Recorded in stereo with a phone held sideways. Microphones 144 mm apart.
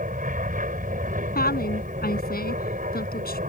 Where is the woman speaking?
80° left.